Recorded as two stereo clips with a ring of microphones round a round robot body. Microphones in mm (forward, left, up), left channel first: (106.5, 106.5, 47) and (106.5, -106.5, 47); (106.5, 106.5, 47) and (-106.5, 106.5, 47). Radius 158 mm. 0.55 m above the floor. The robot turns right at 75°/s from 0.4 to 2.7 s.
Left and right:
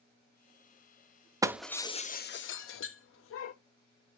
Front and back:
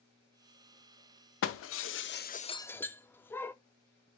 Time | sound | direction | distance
1.4 | breaking glass | 15° right | 0.6 m